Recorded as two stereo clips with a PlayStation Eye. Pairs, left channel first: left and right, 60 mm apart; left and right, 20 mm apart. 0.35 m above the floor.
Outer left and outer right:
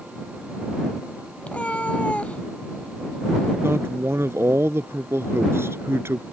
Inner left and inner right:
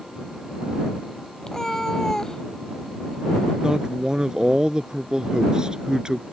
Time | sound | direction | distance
1.4 | a cat meowing | 20° left (ahead or behind) | ?
3.6 | a man speaking | 45° right (ahead or behind) | ?